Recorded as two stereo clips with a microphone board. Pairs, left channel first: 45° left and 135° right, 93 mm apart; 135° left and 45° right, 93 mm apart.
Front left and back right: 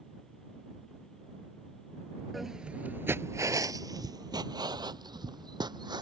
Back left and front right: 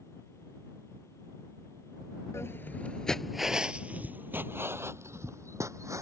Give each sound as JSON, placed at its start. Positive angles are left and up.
{"t": 2.3, "sound": "footsteps", "azimuth_deg": 135}